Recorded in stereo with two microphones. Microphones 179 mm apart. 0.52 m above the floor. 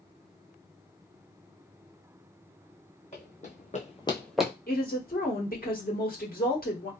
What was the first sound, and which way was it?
Running footsteps, 40° left (ahead or behind).